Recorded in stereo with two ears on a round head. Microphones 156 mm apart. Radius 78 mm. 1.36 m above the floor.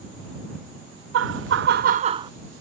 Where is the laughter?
75° right (ahead or behind); by 2.3 s 20° right (ahead or behind).